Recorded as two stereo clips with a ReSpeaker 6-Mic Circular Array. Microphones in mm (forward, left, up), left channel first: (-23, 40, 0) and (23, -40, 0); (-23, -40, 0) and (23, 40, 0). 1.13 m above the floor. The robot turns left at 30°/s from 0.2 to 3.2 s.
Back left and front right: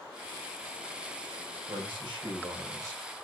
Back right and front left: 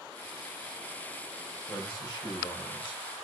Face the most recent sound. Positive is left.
turn(degrees=-125)